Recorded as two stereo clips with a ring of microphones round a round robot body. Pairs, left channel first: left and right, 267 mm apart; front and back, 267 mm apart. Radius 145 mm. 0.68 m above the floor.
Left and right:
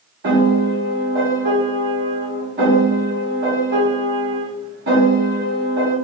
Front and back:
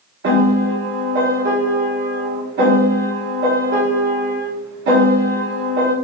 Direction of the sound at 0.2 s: 140° right.